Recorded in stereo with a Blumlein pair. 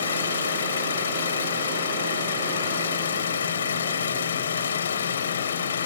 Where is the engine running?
65° left.